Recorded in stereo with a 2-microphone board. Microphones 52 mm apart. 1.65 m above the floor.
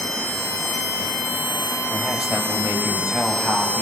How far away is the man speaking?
About 6.5 m.